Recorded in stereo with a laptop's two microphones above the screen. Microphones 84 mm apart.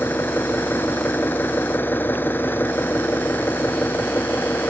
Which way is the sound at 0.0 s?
25° left (ahead or behind).